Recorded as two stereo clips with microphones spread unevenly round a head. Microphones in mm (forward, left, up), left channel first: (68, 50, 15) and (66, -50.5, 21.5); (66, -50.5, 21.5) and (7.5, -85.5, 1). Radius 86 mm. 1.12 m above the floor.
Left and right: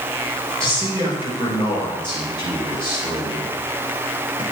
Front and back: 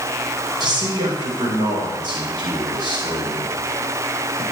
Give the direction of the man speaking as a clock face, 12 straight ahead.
6 o'clock.